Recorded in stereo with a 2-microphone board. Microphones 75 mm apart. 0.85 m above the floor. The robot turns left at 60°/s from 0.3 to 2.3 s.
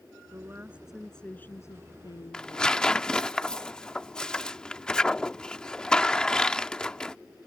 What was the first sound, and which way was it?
A woman speaking, 135° right.